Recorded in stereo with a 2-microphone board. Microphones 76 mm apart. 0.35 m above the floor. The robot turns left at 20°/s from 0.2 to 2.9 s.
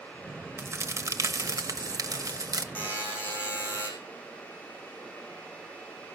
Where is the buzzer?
25° left (ahead or behind), 4.5 m.